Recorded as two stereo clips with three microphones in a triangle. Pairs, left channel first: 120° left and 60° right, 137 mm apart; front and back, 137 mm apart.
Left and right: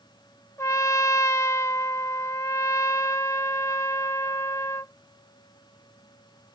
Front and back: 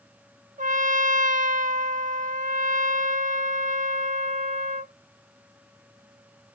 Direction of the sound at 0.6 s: 175° right.